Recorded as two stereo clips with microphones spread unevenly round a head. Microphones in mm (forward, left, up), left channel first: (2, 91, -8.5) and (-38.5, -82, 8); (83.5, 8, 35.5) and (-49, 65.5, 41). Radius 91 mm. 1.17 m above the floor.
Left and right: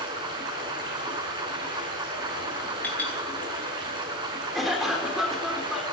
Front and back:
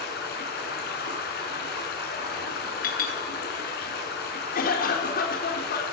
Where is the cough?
15° right, 4 m.